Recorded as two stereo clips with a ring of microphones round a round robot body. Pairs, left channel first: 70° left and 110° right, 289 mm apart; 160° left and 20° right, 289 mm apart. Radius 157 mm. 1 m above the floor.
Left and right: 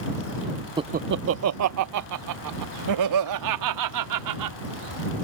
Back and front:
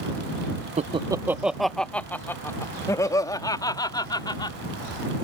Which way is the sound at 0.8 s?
55° right.